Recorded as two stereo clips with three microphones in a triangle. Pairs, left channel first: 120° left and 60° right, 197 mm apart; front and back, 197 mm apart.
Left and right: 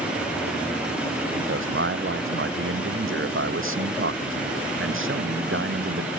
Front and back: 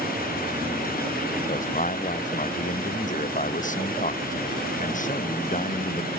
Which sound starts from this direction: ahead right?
A man speaking, at 1.4 s.